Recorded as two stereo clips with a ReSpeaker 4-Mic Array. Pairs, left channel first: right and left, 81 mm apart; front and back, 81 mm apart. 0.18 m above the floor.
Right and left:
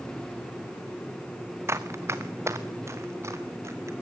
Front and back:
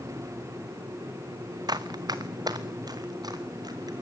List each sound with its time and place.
1.7 s running footsteps: 145° left, 1.0 m